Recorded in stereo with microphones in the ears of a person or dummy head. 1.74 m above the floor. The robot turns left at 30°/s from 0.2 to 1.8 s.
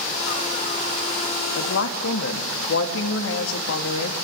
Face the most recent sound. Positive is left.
turn(degrees=70)  # may be behind; listen again after turning